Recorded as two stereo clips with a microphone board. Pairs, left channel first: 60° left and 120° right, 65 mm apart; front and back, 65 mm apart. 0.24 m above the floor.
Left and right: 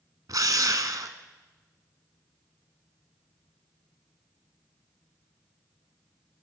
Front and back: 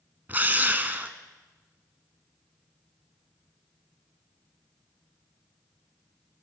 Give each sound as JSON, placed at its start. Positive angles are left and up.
{"t": 0.3, "sound": "a drill", "azimuth_deg": -120, "distance_m": 0.8}